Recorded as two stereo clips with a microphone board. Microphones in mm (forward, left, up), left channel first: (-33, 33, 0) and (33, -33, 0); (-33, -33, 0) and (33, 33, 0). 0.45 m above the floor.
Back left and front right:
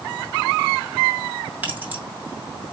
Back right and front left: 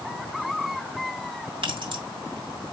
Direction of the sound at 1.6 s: 25° left.